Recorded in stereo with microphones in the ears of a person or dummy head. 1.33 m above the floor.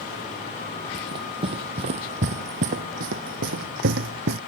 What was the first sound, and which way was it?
Running footsteps, 25° right (ahead or behind).